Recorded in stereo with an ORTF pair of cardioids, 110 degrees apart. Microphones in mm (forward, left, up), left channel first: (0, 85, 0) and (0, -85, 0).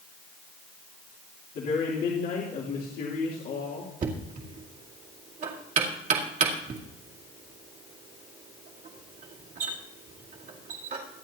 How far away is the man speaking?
About 3 m.